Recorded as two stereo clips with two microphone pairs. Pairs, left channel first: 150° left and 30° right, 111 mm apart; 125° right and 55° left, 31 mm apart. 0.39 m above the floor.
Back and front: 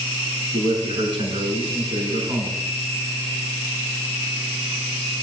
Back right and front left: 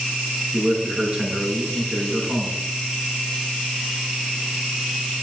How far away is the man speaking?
About 5 m.